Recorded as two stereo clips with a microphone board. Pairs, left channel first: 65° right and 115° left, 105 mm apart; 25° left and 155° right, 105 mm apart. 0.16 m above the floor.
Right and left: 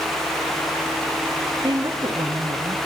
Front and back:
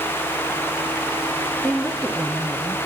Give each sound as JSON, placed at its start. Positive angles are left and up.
{"t": 1.6, "sound": "a woman speaking", "azimuth_deg": 105, "distance_m": 1.4}